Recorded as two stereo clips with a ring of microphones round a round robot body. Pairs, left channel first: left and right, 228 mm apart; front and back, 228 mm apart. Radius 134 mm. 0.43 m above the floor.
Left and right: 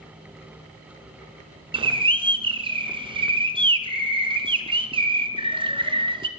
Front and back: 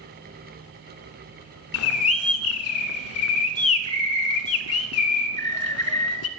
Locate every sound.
1.7 s a bird: 20° right, 0.9 m